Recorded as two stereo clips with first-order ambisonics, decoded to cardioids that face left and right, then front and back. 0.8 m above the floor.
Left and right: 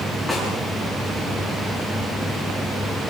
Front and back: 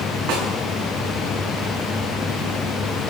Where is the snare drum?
Straight behind, 8.5 m.